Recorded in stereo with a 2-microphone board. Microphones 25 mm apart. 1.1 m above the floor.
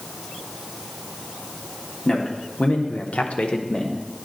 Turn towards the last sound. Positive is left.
turn(degrees=30)  # may be behind; listen again after turning